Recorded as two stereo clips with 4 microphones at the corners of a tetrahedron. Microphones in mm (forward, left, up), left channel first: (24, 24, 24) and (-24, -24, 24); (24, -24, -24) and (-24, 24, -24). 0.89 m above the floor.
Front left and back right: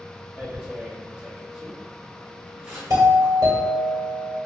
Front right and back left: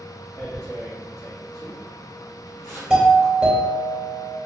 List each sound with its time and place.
0.4 s tearing paper: 65° right, 1.2 m
2.9 s a doorbell: 150° right, 1.9 m